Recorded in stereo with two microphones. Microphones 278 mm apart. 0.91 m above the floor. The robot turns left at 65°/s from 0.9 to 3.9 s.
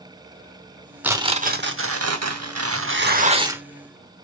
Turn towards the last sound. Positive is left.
turn(degrees=170)